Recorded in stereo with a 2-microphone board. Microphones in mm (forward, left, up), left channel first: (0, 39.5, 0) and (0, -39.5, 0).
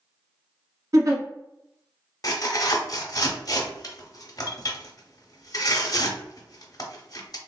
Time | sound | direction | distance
0.9 | a giggle | 45° right (ahead or behind) | 0.9 m
2.2 | tearing paper | 50° left (ahead or behind) | 0.7 m